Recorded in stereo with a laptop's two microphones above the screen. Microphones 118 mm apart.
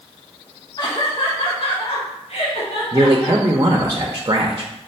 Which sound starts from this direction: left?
Laughter, at 0.8 s.